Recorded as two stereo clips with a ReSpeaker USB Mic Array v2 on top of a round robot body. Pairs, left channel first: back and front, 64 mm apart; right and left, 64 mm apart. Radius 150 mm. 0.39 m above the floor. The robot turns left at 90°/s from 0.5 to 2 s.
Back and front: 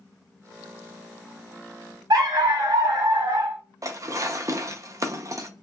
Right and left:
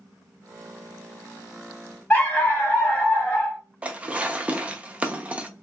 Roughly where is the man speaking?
I don't hear a man speaking.